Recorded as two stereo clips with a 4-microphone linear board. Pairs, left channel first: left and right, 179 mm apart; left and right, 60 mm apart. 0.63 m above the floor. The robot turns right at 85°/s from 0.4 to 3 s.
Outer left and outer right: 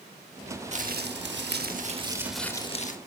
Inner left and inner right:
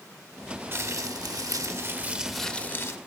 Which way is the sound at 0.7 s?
140° right.